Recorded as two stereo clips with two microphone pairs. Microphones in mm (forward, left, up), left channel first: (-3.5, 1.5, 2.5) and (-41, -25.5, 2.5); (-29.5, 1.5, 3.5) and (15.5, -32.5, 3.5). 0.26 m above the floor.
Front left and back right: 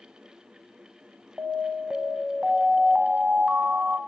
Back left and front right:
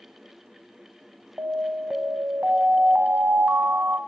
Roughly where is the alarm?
Right.